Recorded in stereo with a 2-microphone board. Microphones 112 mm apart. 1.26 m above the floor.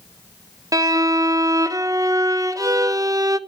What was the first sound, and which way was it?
A violin, 30° right (ahead or behind).